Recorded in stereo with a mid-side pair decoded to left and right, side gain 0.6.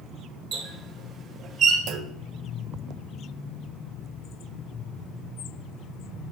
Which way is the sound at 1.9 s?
65° right.